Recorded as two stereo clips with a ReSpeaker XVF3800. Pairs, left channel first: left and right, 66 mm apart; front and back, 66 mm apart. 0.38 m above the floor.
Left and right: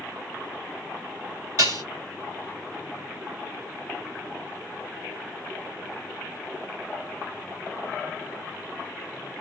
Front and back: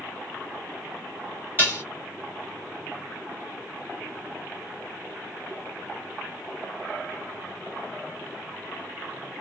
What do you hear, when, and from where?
1.6 s dishes clattering: 120° right, 2 m